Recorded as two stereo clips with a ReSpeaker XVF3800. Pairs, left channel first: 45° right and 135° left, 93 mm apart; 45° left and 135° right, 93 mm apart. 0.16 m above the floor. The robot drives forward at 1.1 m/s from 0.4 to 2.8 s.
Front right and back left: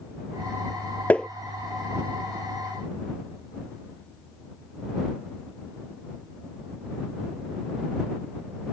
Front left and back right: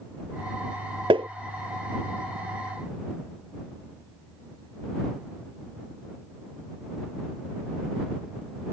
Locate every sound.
1.1 s tapping: 120° right; by 1.3 s 130° right